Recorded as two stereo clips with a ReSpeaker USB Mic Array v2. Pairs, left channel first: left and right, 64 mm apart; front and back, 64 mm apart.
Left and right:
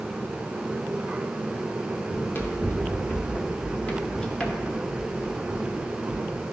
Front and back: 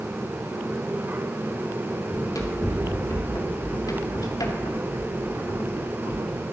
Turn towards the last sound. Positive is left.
turn(degrees=-25)